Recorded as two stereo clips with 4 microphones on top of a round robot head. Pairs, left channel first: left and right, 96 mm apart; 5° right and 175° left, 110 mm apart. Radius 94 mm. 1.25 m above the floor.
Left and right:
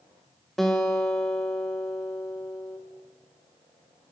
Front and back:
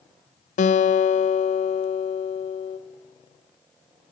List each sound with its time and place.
0.6 s a guitar: 5° left, 0.8 m